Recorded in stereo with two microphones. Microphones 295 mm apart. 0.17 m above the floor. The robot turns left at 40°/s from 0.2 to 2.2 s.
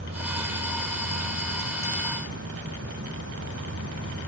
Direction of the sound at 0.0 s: 45° right.